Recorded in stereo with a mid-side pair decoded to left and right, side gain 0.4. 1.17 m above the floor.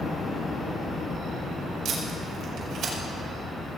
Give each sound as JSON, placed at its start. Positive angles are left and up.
{"t": 1.9, "sound": "tape being pulled", "azimuth_deg": -65, "distance_m": 4.5}